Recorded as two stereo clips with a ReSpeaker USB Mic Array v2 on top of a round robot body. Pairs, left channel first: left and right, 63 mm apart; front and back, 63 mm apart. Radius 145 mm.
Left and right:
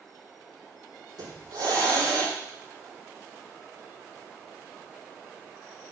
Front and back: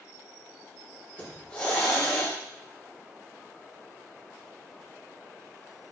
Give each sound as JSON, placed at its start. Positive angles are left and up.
{"t": 1.2, "sound": "a hiss", "azimuth_deg": -70, "distance_m": 5.0}